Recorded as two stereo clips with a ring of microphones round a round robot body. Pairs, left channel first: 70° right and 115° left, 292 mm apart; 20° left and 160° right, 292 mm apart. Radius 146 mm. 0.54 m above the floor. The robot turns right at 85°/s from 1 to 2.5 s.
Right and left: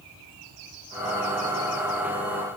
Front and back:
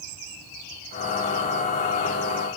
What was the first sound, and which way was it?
Only background noise.